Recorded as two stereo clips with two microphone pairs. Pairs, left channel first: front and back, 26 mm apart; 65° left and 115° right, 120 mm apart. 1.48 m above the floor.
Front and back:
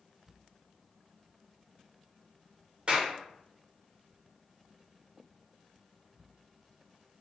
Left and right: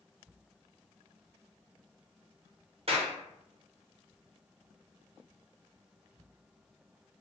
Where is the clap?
135° right, 0.9 m.